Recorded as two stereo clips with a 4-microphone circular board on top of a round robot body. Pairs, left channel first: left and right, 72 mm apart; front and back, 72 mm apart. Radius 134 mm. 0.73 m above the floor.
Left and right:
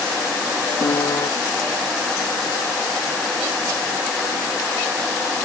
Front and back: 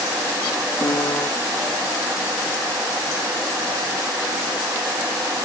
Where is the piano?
50° left.